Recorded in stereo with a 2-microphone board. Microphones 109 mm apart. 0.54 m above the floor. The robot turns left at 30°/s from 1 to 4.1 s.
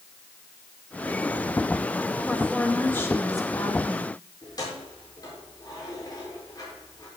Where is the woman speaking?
175° left, 2 m; by 4.1 s 120° left, 2 m.